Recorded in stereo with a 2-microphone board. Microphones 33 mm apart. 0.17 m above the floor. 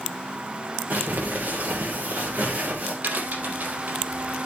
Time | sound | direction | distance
0.9 | crumpling | 60° right (ahead or behind) | 6.5 m
3.0 | a crack | 65° right (ahead or behind) | 4.5 m